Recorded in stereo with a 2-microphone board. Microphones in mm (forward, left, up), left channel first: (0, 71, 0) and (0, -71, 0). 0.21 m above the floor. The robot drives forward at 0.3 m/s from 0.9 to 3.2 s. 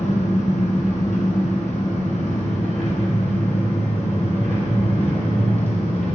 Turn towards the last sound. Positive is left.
turn(degrees=55)  # may be behind; listen again after turning